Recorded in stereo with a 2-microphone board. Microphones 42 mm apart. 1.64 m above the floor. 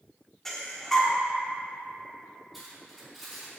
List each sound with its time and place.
0.5 s breathing: 5° left (ahead or behind), 1.2 m
2.5 s cutlery clinking: 5° right (ahead or behind), 3.5 m